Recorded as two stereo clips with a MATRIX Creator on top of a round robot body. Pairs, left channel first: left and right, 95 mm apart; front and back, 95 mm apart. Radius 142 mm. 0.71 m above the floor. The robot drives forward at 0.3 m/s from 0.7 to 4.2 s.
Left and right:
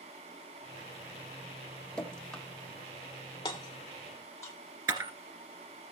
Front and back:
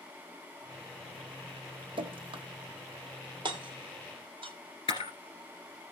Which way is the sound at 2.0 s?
170° left.